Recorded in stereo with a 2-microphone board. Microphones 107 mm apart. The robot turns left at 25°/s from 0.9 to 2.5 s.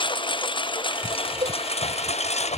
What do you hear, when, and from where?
0.0 s a lawn mower: 130° left; by 2.6 s 90° left
1.4 s a cowbell: 55° right (ahead or behind); by 1.6 s 60° right (ahead or behind)